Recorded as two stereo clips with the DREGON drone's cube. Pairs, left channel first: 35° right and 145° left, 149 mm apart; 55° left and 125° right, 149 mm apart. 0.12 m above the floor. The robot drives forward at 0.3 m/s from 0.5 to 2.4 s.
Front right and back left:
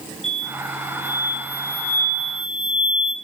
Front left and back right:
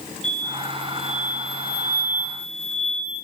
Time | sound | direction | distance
0.2 | an explosion | 55° left | 0.6 m